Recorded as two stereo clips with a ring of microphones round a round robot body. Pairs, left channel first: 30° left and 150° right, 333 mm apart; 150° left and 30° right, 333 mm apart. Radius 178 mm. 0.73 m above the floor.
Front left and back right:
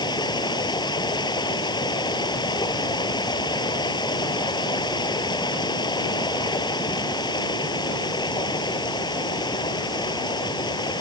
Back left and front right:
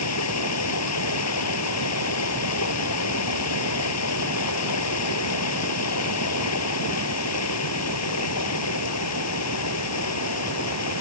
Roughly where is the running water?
Left.